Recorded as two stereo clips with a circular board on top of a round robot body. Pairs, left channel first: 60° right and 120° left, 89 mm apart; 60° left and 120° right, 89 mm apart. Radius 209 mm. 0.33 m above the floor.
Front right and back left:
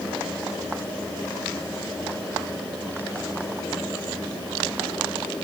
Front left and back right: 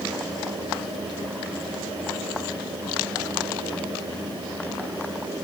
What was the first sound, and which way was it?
Only background noise.